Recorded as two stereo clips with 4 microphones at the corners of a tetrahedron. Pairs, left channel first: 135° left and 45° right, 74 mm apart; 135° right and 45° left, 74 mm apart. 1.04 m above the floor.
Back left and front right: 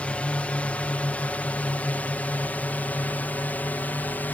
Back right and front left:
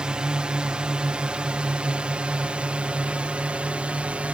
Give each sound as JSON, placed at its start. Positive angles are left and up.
{"t": 0.0, "sound": "a drone", "azimuth_deg": 100}